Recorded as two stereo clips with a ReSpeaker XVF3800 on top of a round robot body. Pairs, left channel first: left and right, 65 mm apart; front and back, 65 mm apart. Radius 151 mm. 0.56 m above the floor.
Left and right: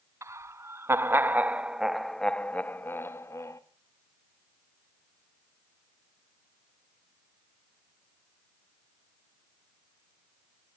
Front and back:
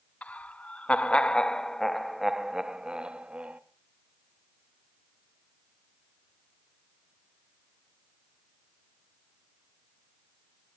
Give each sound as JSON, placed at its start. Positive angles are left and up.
{"t": 0.2, "sound": "laughter", "azimuth_deg": -65, "distance_m": 1.3}